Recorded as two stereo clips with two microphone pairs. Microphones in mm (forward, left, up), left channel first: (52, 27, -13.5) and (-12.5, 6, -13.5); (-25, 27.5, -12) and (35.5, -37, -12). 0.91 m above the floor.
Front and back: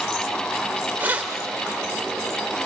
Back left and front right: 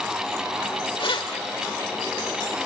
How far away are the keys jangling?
About 2 m.